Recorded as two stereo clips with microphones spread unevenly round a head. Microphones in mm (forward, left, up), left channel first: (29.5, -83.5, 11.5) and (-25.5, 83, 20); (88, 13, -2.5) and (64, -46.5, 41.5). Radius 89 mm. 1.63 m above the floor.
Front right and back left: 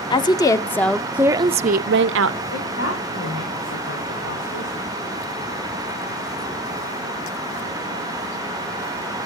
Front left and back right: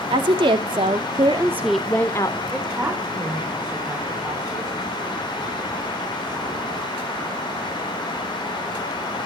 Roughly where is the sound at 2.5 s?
Ahead right.